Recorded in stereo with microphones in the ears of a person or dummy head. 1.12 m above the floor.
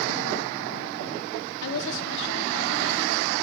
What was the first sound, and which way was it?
A woman speaking, 70° left (ahead or behind).